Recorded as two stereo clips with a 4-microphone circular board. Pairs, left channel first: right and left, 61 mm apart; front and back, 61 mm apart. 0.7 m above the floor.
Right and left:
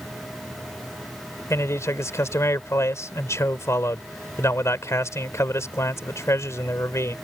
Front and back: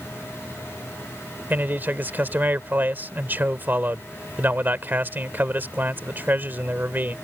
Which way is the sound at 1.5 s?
125° right.